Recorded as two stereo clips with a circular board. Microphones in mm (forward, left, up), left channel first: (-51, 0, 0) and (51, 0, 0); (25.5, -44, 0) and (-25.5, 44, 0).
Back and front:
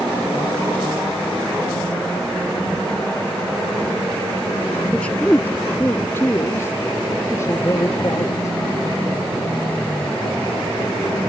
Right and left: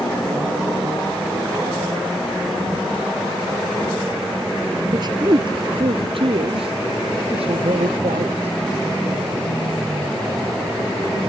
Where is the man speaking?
105° left; by 8.6 s 120° left.